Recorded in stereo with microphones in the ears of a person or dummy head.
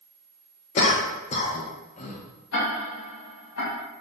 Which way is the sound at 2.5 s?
80° left.